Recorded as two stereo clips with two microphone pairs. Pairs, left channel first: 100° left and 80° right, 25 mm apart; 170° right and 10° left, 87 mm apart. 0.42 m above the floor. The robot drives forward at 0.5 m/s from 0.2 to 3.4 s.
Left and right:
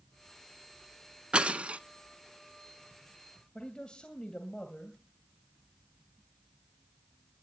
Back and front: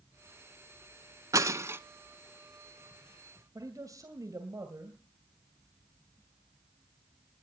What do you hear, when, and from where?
1.3 s breaking glass: 40° right, 0.8 m; by 1.8 s 55° right, 0.7 m
3.5 s a man speaking: 55° left, 2.5 m